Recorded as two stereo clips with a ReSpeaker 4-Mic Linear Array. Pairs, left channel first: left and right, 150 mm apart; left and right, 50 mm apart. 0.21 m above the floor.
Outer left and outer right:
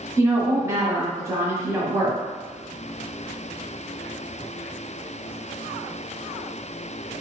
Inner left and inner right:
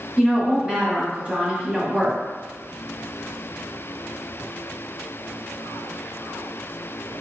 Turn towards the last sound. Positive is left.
turn(degrees=-20)  # may be behind; listen again after turning